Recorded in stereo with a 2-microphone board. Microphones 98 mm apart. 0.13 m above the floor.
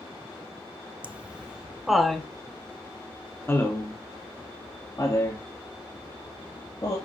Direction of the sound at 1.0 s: 15° right (ahead or behind).